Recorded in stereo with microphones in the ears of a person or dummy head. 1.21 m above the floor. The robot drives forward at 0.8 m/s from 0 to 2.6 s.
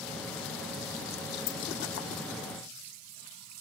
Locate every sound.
1.5 s keys jangling: 75° left (ahead or behind), 1.9 m; by 1.6 s 70° left (ahead or behind), 1.9 m